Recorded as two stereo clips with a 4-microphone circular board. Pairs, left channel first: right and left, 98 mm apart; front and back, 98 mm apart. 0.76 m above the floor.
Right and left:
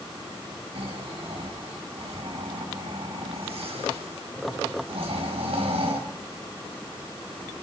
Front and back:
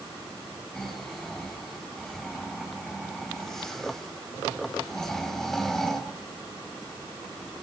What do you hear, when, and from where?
0.8 s snoring: 85° left, 4 m